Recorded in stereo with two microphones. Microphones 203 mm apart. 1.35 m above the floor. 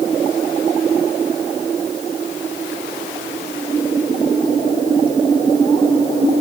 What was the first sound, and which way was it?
Only background noise.